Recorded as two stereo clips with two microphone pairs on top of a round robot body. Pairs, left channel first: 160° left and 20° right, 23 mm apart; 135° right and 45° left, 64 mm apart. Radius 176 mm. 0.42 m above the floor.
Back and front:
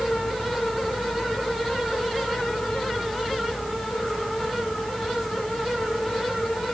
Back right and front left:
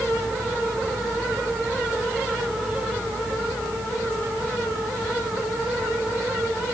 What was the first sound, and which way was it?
Only background noise.